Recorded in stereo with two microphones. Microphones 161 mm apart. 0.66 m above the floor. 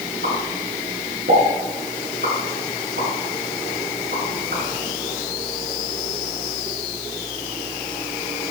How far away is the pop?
About 7.5 m.